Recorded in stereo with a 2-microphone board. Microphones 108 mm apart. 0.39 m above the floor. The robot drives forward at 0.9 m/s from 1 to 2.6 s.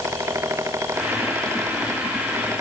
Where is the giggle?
I don't hear a giggle.